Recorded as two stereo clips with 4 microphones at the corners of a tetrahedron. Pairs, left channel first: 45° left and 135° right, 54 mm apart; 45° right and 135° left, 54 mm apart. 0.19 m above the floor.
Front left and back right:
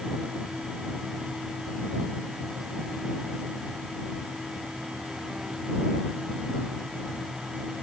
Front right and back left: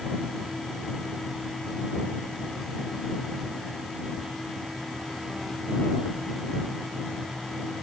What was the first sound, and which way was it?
Only background noise.